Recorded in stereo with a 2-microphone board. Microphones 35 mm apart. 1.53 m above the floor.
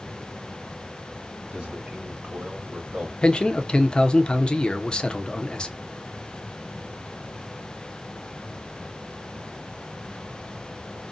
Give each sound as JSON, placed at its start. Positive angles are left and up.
{"t": 1.5, "sound": "a man speaking", "side_deg": -30, "distance_m": 2.5}
{"t": 3.2, "sound": "a man speaking", "side_deg": 25, "distance_m": 0.5}